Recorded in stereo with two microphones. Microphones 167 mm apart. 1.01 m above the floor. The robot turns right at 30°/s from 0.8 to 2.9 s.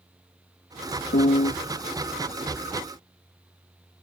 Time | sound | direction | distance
1.1 | a piano | 85° left | ?